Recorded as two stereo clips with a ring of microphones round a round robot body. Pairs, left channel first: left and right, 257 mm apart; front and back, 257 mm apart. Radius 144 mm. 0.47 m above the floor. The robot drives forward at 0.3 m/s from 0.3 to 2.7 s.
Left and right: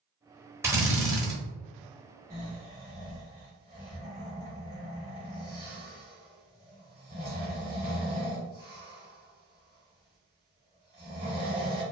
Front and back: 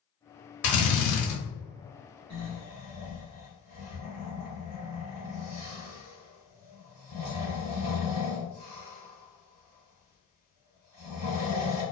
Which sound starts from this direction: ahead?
A drill, at 0.6 s.